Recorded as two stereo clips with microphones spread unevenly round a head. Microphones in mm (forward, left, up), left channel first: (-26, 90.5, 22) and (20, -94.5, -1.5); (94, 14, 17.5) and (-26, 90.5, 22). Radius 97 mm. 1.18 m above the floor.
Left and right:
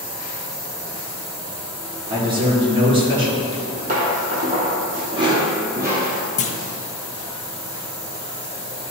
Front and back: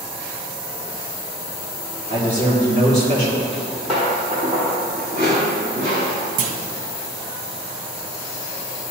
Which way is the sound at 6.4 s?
160° left.